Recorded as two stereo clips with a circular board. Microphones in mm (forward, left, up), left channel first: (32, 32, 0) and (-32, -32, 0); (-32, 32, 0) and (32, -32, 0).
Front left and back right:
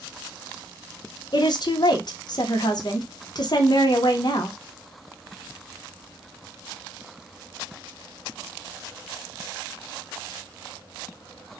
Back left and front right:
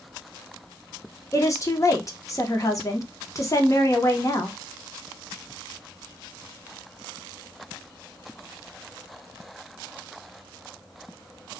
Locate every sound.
1.3 s a woman speaking: 85° left, 0.8 m